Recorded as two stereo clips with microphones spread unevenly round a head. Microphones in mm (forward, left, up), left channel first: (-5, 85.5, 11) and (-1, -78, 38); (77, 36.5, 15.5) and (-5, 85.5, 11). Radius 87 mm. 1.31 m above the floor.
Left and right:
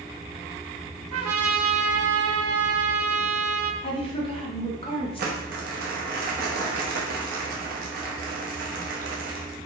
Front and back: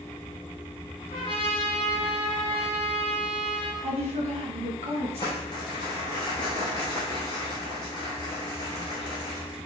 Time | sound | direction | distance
1.1 | a trumpet | 90° right | 0.6 m
3.8 | a woman speaking | 150° left | 1.0 m
5.2 | crumpling | 85° right | 0.8 m